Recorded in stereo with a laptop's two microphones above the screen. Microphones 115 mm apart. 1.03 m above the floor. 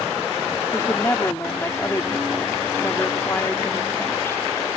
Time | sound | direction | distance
0.7 | a woman speaking | 20° left (ahead or behind) | ?